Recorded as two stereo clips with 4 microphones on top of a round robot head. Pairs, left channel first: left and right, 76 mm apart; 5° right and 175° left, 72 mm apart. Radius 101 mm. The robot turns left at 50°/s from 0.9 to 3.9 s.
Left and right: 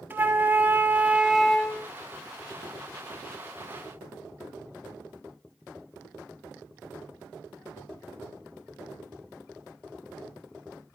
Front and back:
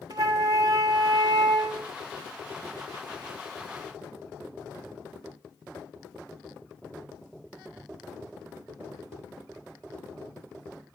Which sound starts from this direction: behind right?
A flute, at 0.1 s.